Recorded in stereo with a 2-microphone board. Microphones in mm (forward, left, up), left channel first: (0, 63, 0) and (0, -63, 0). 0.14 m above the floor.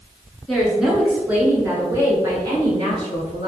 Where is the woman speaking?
Centre (ahead or behind), 1.7 m; by 3.5 s 45° right (ahead or behind), 2.5 m.